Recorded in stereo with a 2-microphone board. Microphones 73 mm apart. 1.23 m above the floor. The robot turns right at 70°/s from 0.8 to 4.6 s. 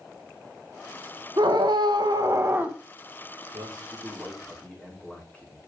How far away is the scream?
About 1.7 m.